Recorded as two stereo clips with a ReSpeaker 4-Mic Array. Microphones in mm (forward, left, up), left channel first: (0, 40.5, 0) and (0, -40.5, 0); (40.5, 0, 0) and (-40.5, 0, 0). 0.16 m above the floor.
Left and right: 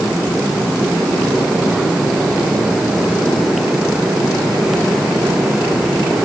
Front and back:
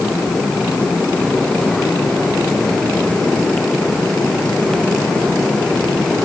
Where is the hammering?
I don't hear hammering.